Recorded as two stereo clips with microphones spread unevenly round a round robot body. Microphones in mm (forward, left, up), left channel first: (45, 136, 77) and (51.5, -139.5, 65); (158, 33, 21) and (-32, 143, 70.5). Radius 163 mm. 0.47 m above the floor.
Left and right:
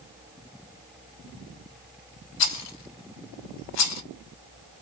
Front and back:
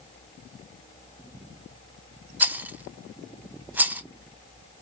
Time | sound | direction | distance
2.4 | a rattle | 65° left | 0.8 m